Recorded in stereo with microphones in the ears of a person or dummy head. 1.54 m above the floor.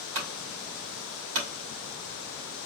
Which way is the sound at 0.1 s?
70° right (ahead or behind).